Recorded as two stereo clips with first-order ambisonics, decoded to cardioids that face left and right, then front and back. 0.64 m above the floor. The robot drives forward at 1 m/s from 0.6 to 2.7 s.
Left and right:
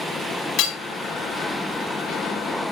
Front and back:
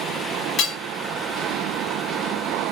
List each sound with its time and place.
0.6 s hammering: 55° left, 3.5 m